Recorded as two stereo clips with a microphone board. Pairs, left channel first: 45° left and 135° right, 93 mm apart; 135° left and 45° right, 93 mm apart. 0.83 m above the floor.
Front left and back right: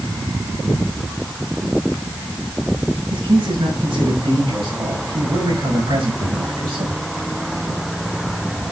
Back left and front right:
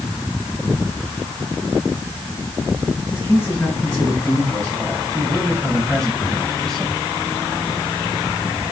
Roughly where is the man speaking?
Behind right.